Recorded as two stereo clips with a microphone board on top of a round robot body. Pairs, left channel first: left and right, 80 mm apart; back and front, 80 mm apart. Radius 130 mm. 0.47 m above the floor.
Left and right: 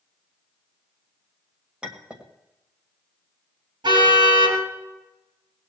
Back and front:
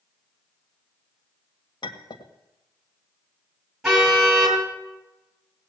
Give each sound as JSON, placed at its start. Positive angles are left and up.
{"t": 1.8, "sound": "a clink", "azimuth_deg": -165, "distance_m": 2.0}
{"t": 3.8, "sound": "a car horn", "azimuth_deg": -85, "distance_m": 5.5}